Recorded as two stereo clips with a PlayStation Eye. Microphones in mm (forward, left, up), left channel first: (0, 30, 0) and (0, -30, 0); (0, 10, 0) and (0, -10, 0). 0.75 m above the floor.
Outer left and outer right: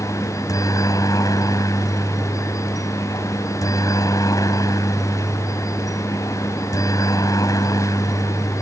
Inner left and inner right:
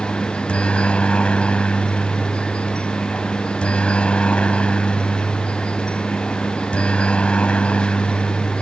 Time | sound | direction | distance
0.0 | a helicopter | 75° left (ahead or behind) | ?